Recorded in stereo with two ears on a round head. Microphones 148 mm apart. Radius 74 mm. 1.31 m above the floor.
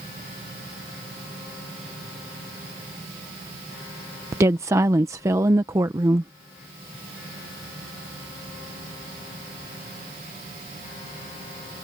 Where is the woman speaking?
20° right (ahead or behind).